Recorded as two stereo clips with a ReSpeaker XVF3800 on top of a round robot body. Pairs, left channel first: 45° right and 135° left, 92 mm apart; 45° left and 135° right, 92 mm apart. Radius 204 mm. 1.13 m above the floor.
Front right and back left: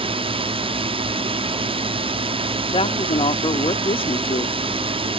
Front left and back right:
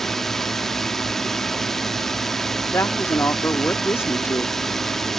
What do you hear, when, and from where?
0.0 s a drone: 130° left
2.7 s a woman speaking: 20° right